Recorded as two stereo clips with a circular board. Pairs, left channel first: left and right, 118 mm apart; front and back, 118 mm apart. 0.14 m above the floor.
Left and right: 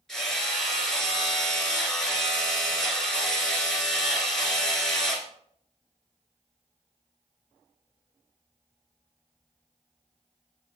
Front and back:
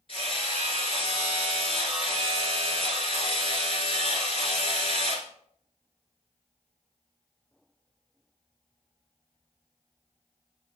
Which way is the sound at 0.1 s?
5° left.